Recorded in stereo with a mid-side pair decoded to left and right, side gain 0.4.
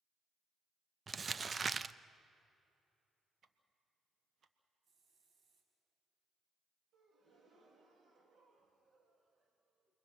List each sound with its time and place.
1.1 s crumpling: 35° right, 0.5 m
3.4 s ticking: 60° right, 1.6 m
4.8 s a hiss: 60° right, 5 m
6.9 s a gasp: 50° right, 3.5 m